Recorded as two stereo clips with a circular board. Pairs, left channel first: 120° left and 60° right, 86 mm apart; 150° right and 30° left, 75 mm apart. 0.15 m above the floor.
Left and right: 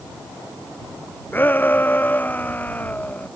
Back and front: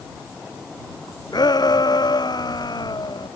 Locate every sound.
1.3 s a shout: 170° right